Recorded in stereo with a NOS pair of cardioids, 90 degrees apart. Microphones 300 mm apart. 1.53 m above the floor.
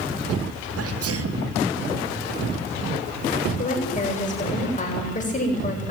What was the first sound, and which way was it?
A sneeze, 55° right.